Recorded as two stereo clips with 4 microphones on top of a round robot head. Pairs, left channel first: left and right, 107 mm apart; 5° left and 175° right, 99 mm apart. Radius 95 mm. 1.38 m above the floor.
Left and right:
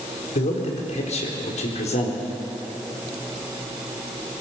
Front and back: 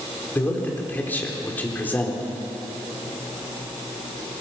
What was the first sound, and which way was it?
A man speaking, 75° left.